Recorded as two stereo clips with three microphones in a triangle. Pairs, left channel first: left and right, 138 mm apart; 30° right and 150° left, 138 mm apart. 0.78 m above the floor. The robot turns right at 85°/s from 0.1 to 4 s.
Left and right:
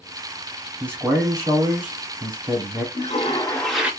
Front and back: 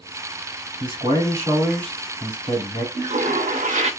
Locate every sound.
0.8 s a man speaking: 165° left, 1.9 m; by 2.9 s 20° right, 1.9 m
3.0 s a toilet flushing: 110° left, 0.6 m; by 3.9 s 170° right, 0.6 m